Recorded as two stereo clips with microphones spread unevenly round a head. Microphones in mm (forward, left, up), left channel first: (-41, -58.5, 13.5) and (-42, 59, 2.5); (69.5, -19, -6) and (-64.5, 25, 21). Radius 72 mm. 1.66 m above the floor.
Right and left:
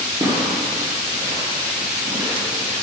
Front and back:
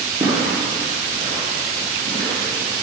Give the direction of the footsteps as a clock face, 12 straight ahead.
8 o'clock.